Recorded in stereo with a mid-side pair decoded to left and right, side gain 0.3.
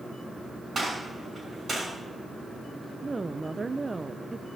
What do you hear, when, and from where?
0.8 s a gunshot: 45° right, 7 m
3.0 s a woman speaking: 35° right, 0.6 m